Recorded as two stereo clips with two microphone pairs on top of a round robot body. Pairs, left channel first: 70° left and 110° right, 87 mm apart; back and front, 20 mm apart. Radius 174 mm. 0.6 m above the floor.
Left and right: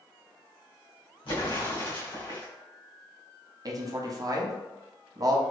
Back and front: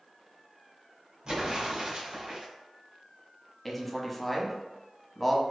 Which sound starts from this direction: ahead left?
An explosion, at 1.2 s.